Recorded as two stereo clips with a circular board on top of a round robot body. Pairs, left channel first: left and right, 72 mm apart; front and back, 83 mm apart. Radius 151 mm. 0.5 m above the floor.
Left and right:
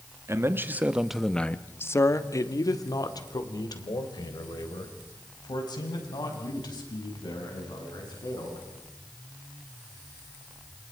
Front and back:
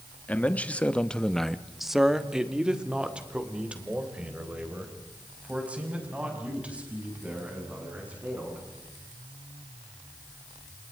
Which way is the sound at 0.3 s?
65° right.